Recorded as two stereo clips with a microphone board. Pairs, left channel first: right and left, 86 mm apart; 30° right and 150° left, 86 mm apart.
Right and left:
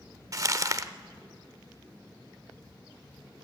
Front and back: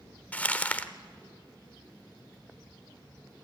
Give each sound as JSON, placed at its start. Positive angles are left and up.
{"t": 0.3, "sound": "crumpling", "azimuth_deg": 40, "distance_m": 0.7}